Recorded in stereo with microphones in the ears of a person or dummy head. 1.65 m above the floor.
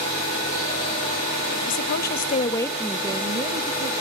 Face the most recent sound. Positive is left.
turn(degrees=-40)  # may be behind; listen again after turning